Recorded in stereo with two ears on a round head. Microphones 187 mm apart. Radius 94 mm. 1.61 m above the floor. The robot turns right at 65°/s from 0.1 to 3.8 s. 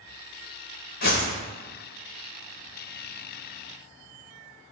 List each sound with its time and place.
1.0 s a whoosh: 50° left (ahead or behind), 1.1 m; by 1.4 s 35° left (ahead or behind), 1.1 m